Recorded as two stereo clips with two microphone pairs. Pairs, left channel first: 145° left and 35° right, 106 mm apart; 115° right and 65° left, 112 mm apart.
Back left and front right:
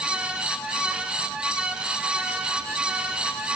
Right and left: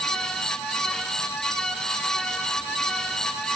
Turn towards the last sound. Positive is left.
No sound to turn to.